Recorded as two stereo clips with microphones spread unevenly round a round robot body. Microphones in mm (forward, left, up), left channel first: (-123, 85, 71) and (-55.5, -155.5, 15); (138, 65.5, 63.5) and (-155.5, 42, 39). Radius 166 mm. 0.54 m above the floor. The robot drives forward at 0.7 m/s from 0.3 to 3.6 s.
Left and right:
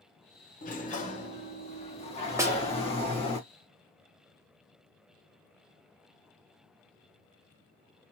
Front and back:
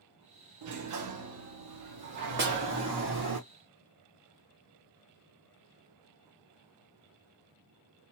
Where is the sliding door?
170° left, 1.4 m; by 3.4 s 175° left, 3.5 m.